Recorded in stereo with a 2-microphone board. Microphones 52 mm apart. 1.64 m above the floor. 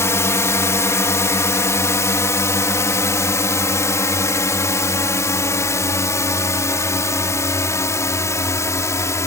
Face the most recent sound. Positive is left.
turn(degrees=75)  # may be behind; listen again after turning